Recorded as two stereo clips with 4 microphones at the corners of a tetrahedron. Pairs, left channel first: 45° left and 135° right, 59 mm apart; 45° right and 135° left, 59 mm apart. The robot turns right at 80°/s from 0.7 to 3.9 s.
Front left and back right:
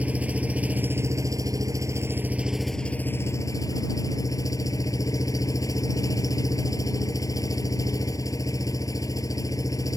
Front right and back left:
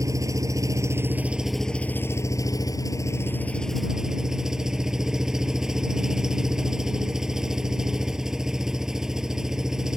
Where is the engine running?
160° left; by 10.0 s 55° left.